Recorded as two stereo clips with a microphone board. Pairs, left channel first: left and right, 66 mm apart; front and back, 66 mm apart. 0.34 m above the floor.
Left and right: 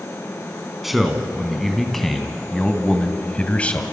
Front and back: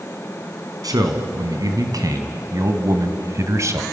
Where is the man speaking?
175° right, 3 m; by 3.8 s 155° left, 2 m.